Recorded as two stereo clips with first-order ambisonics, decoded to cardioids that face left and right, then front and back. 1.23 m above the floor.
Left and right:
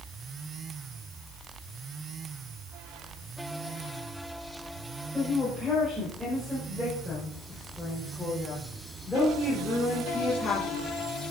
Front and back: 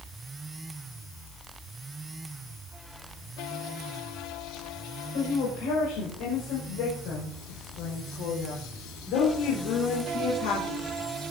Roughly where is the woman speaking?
Ahead.